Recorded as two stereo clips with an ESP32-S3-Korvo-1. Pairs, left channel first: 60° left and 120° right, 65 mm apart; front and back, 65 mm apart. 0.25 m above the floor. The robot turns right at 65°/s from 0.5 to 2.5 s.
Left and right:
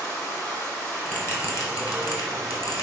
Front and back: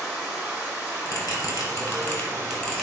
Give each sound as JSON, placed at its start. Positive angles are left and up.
{"t": 0.0, "sound": "running water", "azimuth_deg": 100, "distance_m": 1.5}
{"t": 1.1, "sound": "a bell", "azimuth_deg": -5, "distance_m": 0.9}